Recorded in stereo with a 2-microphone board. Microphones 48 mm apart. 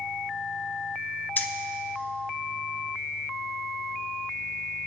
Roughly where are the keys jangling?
Left.